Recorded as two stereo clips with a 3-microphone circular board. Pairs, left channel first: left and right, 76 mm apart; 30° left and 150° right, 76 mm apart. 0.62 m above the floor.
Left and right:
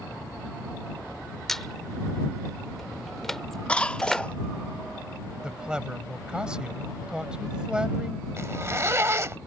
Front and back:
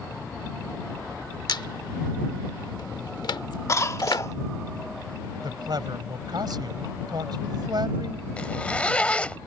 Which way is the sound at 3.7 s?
25° left.